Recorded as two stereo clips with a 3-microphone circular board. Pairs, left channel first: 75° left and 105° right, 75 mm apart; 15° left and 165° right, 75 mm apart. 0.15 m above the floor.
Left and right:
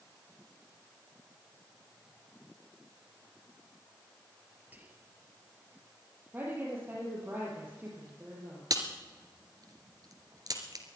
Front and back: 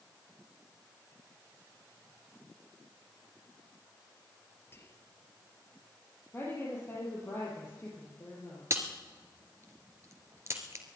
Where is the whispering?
40° right, 2.5 m.